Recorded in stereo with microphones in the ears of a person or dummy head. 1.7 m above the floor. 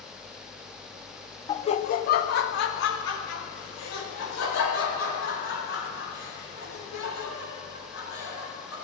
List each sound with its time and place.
1.5 s laughter: 25° left (ahead or behind), 0.6 m; by 8.7 s 90° left, 6 m